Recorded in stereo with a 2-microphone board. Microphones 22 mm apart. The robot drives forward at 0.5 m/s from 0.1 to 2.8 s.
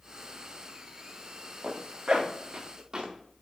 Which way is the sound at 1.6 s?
50° right (ahead or behind).